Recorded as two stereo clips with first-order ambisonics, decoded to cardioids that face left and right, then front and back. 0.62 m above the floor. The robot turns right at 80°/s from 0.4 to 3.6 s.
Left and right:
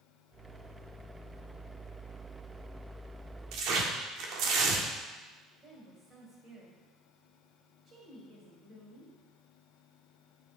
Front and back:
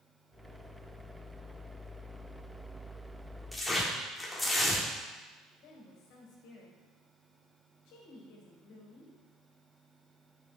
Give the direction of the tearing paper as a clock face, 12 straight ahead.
3 o'clock.